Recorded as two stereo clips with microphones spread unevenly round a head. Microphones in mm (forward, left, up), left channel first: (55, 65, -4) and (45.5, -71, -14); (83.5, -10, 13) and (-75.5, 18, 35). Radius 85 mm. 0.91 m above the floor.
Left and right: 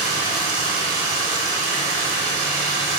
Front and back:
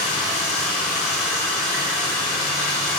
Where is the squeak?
No squeak in this recording.